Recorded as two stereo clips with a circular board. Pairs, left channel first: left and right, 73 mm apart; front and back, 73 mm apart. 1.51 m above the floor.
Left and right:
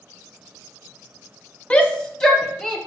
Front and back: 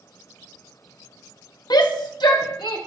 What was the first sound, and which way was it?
A shout, 15° left.